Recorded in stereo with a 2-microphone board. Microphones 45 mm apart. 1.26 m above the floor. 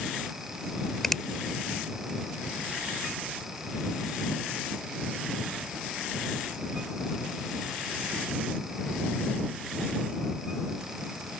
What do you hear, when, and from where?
1.0 s a finger snap: 10° left (ahead or behind)